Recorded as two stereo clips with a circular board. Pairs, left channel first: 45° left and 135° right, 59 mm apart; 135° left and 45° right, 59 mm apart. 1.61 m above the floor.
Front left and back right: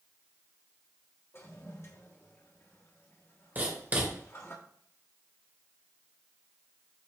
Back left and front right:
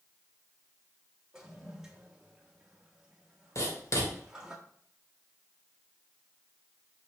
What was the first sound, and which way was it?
A toilet flushing, 30° left.